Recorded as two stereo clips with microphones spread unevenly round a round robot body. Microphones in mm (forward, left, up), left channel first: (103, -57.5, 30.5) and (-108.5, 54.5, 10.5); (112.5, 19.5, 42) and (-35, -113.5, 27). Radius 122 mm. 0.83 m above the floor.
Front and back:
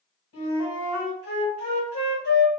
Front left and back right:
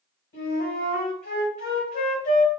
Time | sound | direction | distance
0.3 | a flute | 5° left | 2 m